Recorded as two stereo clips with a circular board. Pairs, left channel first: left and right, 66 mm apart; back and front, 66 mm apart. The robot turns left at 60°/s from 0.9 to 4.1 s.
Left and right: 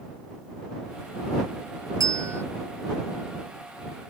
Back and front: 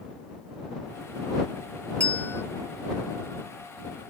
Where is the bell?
110° right; by 2.4 s 135° right.